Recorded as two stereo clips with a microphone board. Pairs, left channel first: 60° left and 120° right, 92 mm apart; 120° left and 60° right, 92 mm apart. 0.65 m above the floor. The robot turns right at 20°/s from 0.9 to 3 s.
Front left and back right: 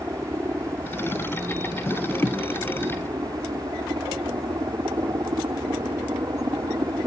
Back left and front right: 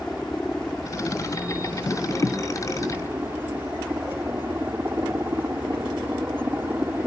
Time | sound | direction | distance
0.0 | a helicopter | 155° right | ?